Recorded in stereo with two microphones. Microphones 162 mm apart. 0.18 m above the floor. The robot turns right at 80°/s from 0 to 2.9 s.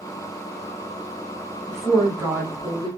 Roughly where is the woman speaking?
Centre.